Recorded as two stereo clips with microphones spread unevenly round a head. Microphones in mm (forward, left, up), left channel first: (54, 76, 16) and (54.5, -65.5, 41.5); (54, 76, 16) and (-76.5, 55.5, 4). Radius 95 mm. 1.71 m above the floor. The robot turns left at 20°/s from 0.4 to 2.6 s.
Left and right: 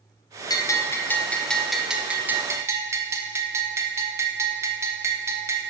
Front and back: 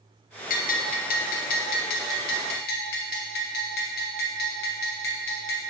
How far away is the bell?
About 0.7 m.